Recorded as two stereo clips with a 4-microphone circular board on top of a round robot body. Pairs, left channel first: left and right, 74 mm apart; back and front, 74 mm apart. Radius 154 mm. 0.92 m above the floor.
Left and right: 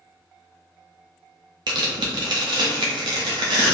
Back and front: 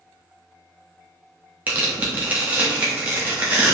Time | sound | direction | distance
1.7 | tearing paper | 65° right | 0.7 m